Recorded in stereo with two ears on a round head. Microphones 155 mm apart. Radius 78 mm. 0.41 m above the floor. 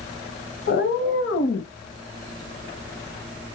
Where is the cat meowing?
65° left (ahead or behind), 1.4 m.